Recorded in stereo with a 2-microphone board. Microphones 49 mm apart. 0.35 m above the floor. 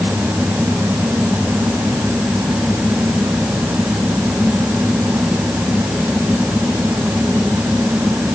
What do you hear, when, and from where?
Only background noise.